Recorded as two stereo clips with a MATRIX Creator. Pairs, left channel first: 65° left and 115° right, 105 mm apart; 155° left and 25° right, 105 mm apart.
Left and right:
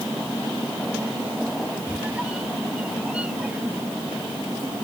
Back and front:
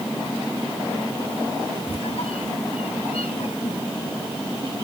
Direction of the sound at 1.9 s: 170° left.